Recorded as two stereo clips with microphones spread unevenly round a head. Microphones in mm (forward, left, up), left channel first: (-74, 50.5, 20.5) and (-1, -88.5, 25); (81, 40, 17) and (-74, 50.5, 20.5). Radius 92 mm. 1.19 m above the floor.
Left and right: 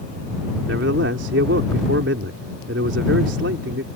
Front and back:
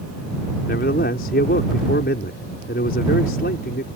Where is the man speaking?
45° right.